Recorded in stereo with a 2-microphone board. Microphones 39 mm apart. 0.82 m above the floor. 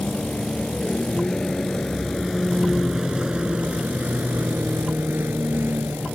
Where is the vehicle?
25° left (ahead or behind); by 6.2 s 75° right (ahead or behind).